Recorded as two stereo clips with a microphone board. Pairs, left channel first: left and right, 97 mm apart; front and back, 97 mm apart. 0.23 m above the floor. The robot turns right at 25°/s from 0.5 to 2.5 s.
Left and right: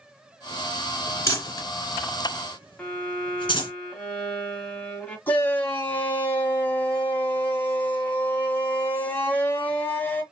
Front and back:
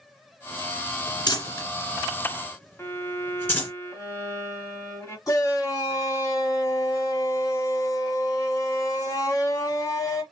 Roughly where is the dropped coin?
No dropped coin in this recording.